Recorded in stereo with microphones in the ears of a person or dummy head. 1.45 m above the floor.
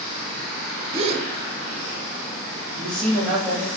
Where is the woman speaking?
5° left (ahead or behind), 1.5 m.